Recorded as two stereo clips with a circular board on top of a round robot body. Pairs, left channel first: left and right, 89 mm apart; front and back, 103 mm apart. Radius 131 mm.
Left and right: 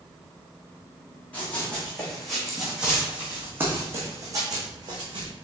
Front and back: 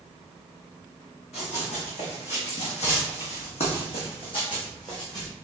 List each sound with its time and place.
1.3 s running footsteps: 15° left, 2.0 m; by 5.3 s 55° right, 1.7 m